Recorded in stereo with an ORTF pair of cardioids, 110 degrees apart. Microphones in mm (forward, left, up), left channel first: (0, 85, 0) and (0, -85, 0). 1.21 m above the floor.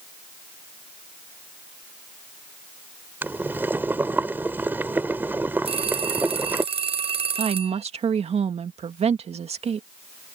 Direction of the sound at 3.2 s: 10° right.